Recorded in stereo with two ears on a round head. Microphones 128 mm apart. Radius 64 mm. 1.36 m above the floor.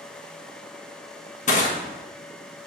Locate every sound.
1.5 s crushing: 55° left (ahead or behind), 1.2 m